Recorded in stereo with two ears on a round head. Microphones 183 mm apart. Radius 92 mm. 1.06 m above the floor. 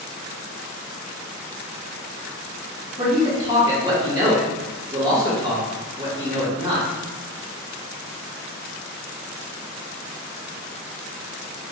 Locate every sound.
3.0 s a man speaking: 15° right (ahead or behind), 1.7 m